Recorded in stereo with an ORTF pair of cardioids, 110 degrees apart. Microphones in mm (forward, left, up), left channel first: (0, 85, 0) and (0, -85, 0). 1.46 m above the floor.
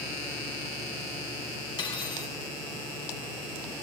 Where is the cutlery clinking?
30° left, 5 m.